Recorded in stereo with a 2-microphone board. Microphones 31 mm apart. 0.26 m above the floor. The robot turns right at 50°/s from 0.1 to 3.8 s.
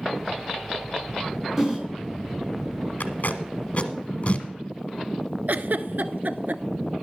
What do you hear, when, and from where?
1.6 s a whoosh: 10° right (ahead or behind), 3 m; by 1.8 s 20° right (ahead or behind), 3 m
3.0 s tape being pulled: 60° left (ahead or behind), 1.3 m; by 4.5 s 45° left (ahead or behind), 1.3 m
5.5 s a giggle: 65° right (ahead or behind), 0.6 m